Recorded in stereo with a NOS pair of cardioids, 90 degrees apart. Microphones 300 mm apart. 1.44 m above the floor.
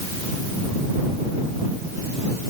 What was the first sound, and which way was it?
Only background noise.